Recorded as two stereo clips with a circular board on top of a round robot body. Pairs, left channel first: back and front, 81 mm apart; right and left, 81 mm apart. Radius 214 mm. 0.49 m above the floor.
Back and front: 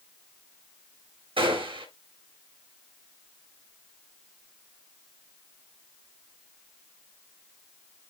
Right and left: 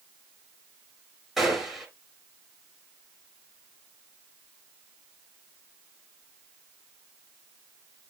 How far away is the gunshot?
About 3.5 m.